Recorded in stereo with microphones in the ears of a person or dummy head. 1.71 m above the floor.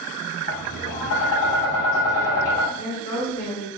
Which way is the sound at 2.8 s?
40° left (ahead or behind).